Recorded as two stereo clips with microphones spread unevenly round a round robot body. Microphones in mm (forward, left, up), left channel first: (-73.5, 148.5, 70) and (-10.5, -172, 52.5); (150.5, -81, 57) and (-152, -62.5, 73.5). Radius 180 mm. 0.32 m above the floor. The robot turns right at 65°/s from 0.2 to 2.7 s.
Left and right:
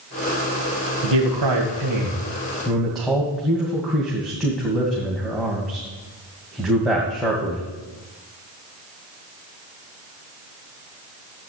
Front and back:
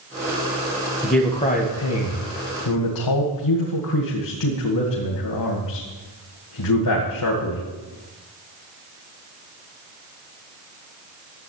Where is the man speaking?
100° right, 2 m; by 7.6 s 10° left, 2 m.